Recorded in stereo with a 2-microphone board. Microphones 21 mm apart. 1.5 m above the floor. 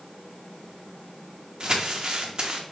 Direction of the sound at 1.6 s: 45° right (ahead or behind).